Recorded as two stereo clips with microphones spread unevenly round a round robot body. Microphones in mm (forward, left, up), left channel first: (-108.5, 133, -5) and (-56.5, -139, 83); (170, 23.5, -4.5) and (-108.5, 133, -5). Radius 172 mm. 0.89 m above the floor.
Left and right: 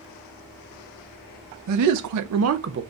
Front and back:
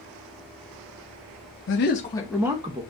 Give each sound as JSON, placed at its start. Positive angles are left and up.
{"t": 1.7, "sound": "a man speaking", "azimuth_deg": -55, "distance_m": 0.8}